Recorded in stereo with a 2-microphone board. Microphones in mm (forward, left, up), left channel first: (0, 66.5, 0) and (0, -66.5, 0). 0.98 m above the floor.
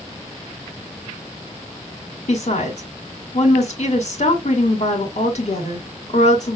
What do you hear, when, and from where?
2.3 s a woman speaking: 55° left (ahead or behind), 1.9 m